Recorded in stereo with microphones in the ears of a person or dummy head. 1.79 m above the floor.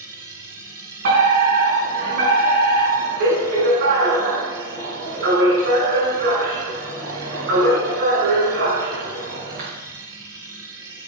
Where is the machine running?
15° right (ahead or behind), 2.0 m.